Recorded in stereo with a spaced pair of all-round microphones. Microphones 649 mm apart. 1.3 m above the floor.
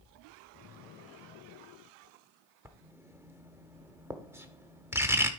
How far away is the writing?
About 1.0 m.